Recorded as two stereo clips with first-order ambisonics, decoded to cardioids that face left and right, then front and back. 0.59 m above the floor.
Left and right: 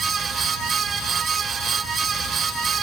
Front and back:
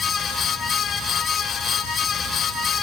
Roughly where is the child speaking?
No child speaking in this recording.